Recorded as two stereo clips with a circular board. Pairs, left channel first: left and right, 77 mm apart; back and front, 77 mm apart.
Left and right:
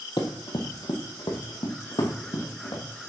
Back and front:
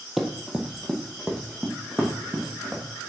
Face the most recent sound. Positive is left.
turn(degrees=85)